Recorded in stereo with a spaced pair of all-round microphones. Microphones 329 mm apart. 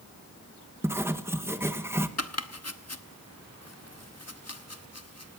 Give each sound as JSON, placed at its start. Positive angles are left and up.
{"t": 0.8, "sound": "writing", "side_deg": -5, "distance_m": 1.1}
{"t": 2.2, "sound": "chopping", "side_deg": 50, "distance_m": 1.0}